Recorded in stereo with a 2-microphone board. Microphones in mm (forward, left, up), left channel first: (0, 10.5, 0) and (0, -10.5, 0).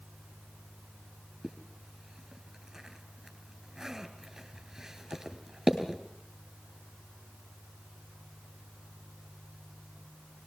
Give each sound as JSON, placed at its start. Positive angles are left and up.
{"t": 1.4, "sound": "a zipper", "side_deg": -20, "distance_m": 2.5}